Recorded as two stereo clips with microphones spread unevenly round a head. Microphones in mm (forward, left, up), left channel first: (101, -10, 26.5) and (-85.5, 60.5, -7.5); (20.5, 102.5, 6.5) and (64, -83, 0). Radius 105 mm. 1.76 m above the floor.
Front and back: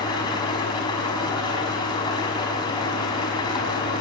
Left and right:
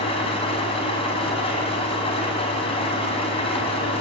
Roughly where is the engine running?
Ahead left.